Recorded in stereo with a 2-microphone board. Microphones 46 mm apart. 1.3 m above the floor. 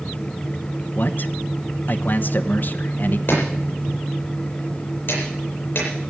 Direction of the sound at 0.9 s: 50° left (ahead or behind).